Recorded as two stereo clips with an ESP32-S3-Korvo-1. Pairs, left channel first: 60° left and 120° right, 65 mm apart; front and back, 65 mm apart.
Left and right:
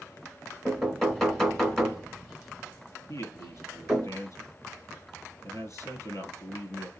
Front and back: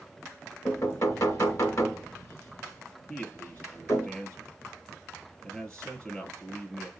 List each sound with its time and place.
0.7 s knocking: 25° right, 2.5 m
3.1 s a man speaking: 75° left, 2.5 m